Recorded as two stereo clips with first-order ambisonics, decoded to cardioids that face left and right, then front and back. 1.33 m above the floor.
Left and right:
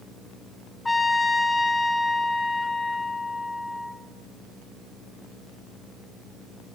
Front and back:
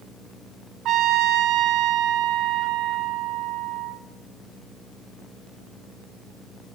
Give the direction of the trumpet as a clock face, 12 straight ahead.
6 o'clock.